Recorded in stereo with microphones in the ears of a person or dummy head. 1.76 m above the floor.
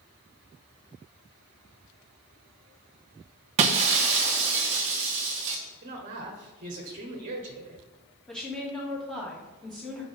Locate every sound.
3.6 s breaking glass: 30° right (ahead or behind), 1.0 m
5.8 s a woman speaking: 40° right (ahead or behind), 1.3 m
8.3 s a woman speaking: 5° left (ahead or behind), 2.5 m